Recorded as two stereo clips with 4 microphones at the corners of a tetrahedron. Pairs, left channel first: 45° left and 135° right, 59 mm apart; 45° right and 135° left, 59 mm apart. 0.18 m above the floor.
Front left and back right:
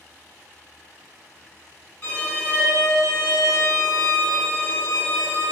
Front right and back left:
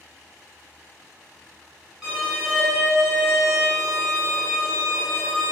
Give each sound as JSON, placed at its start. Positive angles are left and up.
{"t": 2.0, "sound": "a violin", "azimuth_deg": 55, "distance_m": 1.5}